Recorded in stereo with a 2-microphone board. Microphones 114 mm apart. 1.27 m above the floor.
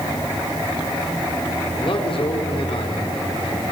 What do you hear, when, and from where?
1.8 s a man speaking: 50° left (ahead or behind), 4 m